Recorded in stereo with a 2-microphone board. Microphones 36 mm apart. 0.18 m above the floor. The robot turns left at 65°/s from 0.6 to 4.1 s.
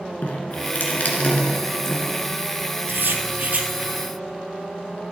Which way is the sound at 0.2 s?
55° left (ahead or behind).